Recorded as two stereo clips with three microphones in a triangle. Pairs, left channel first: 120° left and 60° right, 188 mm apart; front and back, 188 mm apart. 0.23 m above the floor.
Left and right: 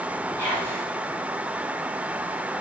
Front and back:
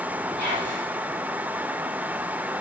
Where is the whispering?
160° right, 8 m.